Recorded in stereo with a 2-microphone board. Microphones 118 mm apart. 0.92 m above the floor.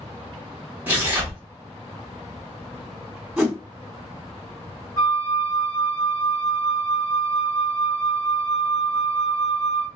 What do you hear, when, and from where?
0.9 s tearing paper: 15° right (ahead or behind), 1.0 m
3.4 s a whoosh: 10° right (ahead or behind), 1.4 m
5.0 s a flute: 25° left (ahead or behind), 1.0 m